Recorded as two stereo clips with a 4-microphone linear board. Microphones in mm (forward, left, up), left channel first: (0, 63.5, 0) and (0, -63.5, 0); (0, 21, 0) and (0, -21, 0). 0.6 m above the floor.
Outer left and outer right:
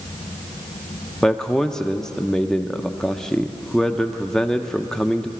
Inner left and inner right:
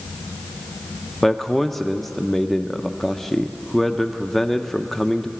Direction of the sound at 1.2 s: 5° left (ahead or behind).